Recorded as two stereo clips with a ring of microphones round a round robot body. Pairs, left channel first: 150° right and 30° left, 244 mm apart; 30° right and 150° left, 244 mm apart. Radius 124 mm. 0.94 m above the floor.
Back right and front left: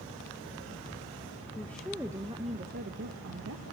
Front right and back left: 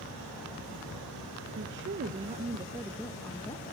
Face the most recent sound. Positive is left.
turn(degrees=40)